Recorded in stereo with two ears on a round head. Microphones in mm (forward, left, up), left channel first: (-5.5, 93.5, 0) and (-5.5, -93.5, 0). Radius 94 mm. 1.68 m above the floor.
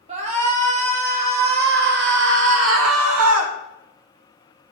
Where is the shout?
35° right (ahead or behind), 5.5 m; by 3.5 s 85° right, 3 m.